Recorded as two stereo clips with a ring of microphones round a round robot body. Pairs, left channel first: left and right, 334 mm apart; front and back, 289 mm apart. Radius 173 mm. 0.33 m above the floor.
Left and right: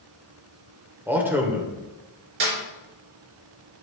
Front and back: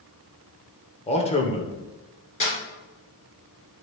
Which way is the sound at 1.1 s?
15° right.